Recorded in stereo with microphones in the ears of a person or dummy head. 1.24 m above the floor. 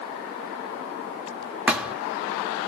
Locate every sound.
1.7 s a thud: 5° right (ahead or behind), 0.9 m